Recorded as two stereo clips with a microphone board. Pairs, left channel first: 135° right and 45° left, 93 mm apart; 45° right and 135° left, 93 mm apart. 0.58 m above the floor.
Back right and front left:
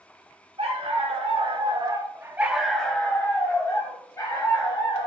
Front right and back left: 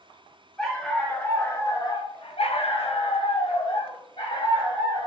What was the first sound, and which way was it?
A dog barking, 45° left.